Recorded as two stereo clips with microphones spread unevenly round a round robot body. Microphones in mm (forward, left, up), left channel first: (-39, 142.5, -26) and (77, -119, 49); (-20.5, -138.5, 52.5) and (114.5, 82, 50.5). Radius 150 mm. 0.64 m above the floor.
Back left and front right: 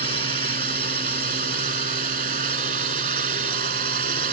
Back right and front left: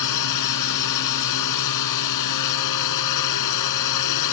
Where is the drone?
130° right.